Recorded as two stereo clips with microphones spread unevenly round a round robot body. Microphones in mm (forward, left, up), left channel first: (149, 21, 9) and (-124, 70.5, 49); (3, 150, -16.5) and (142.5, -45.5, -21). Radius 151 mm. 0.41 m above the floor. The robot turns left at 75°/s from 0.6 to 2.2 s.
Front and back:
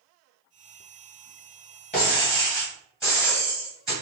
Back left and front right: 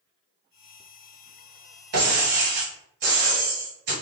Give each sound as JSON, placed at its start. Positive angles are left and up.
{"t": 1.9, "sound": "breaking glass", "azimuth_deg": -80, "distance_m": 1.7}